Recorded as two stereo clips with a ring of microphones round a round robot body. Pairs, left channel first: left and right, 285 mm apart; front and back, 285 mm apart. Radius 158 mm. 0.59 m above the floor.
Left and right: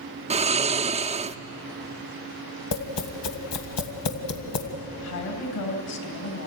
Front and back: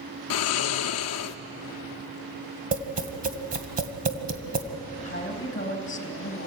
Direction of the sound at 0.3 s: 25° right.